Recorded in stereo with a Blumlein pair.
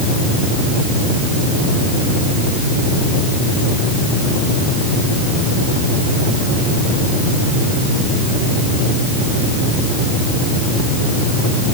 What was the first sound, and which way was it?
Only background noise.